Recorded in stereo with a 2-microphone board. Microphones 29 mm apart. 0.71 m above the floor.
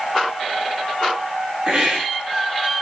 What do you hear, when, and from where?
1.7 s a hiss: 20° right (ahead or behind), 2.5 m